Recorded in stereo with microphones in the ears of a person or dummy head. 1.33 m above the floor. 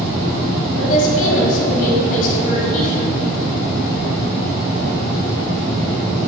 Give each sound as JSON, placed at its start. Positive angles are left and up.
{"t": 0.8, "sound": "a woman speaking", "side_deg": 45, "distance_m": 2.5}